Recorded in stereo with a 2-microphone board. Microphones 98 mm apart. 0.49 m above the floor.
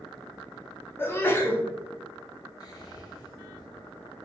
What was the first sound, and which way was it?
A sneeze, 25° left (ahead or behind).